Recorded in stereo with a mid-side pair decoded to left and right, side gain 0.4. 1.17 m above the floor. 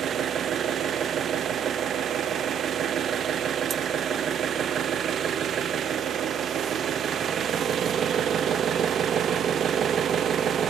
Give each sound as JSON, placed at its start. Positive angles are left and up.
{"t": 0.0, "sound": "an engine running", "azimuth_deg": -65, "distance_m": 1.2}